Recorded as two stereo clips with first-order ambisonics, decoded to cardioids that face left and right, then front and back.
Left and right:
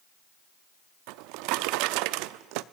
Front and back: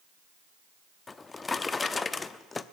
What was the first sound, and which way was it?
A drawer, 75° right.